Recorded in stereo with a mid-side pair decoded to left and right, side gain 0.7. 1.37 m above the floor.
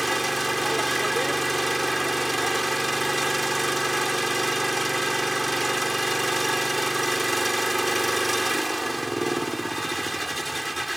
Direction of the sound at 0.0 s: 5° right.